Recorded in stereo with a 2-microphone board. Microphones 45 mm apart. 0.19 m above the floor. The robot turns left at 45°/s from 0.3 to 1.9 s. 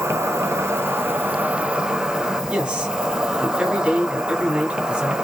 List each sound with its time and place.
0.0 s an insect: 90° right, 0.8 m; by 5.2 s 160° right, 0.8 m
2.5 s a man speaking: 20° right (ahead or behind), 1.6 m